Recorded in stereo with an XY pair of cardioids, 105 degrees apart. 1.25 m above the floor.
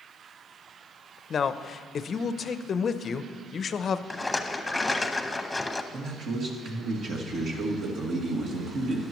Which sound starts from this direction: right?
A man speaking, at 5.9 s.